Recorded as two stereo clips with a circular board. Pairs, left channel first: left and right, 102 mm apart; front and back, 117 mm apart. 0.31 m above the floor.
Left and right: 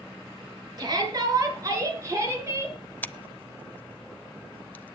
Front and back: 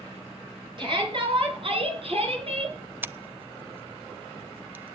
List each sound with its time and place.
0.8 s a shout: 135° right, 5.5 m; by 2.8 s 155° right, 5.5 m
3.0 s scissors: 135° left, 0.6 m